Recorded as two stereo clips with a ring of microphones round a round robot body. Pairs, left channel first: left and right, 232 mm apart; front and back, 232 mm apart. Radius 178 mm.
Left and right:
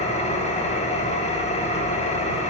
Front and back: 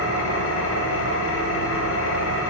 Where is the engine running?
25° left, 0.9 m.